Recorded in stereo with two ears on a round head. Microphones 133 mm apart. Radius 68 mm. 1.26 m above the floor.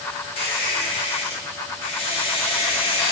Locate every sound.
0.4 s a squeak: 35° left (ahead or behind), 0.8 m